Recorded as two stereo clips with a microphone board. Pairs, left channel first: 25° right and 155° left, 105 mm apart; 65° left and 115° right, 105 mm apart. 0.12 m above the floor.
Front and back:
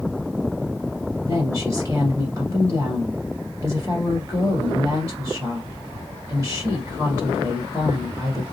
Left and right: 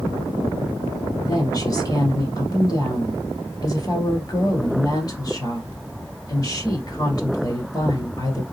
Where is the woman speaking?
105° left, 1.9 m.